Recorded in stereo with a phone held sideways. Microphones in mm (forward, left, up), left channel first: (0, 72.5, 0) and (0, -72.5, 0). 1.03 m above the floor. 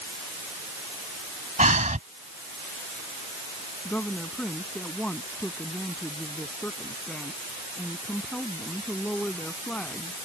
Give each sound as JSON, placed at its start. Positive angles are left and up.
{"t": 1.6, "sound": "breathing", "side_deg": -60}
{"t": 3.9, "sound": "a woman speaking", "side_deg": 10}